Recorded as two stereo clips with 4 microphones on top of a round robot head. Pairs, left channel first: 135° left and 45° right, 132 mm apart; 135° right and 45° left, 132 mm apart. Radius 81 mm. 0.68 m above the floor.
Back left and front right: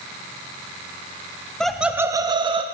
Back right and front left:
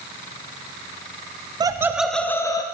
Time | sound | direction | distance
1.6 | laughter | 55° left | 0.5 m